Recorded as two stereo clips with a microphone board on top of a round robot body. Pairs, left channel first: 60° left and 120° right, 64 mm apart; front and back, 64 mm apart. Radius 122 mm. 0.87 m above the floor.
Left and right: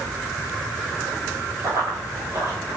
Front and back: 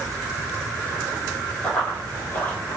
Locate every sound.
1.6 s running footsteps: 70° right, 1.7 m; by 2.8 s 60° right, 1.2 m